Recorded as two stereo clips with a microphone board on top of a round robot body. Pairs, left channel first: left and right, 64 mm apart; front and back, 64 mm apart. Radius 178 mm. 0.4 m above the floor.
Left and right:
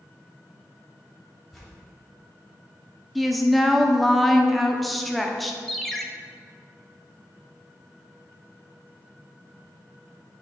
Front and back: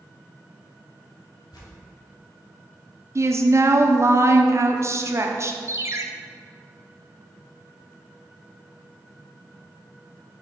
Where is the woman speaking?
Straight behind, 1.0 m.